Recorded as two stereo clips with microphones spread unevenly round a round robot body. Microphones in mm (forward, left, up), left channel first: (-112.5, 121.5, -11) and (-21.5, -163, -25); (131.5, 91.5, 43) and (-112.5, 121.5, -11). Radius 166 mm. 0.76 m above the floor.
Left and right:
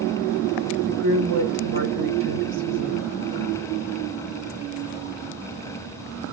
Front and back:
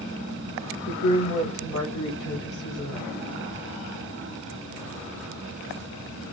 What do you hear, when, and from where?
0.9 s a woman speaking: 60° right, 2 m